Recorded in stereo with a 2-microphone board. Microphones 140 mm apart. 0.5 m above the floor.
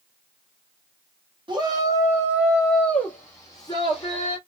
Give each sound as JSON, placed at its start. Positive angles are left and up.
{"t": 1.5, "sound": "a shout", "side_deg": -35, "distance_m": 1.4}